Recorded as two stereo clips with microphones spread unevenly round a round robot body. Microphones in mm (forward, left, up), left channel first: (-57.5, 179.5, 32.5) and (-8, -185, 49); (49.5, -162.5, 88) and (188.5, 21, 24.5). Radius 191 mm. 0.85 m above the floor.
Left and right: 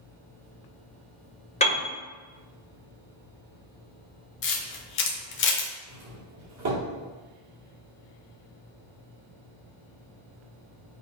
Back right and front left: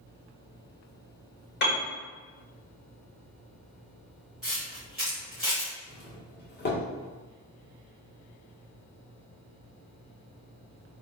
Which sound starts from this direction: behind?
A piano, at 1.6 s.